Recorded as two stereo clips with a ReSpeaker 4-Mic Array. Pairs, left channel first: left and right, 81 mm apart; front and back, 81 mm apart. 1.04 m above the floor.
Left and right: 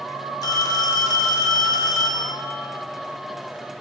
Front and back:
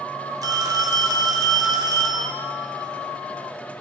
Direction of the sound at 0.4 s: 135° left.